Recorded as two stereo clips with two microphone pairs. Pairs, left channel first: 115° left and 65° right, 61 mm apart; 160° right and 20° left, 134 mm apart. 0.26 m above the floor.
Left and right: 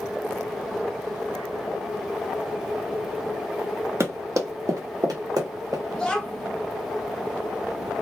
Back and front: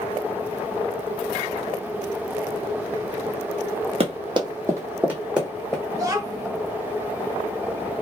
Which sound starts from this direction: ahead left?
A child speaking, at 5.9 s.